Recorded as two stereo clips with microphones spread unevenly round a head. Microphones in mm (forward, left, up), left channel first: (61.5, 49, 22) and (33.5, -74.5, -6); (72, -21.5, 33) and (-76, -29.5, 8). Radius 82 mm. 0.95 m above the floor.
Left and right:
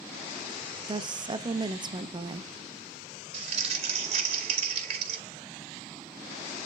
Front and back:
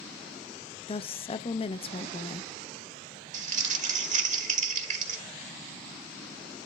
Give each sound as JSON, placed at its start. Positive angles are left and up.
{"t": 0.9, "sound": "a woman speaking", "azimuth_deg": -55, "distance_m": 0.8}
{"t": 3.3, "sound": "crumpling", "azimuth_deg": -145, "distance_m": 2.0}